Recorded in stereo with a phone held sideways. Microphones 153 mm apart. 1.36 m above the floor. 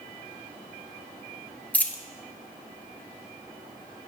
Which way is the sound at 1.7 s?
10° left (ahead or behind).